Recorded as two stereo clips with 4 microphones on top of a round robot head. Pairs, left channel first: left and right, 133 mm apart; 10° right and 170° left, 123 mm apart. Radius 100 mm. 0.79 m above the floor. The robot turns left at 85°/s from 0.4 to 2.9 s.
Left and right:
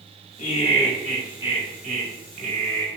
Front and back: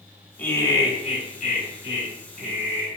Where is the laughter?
60° left, 2.5 m; by 2.9 s 145° right, 2.5 m.